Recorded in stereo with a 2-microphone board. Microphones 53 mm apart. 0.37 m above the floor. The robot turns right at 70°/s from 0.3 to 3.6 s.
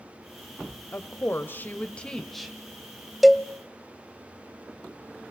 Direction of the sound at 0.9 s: 75° left.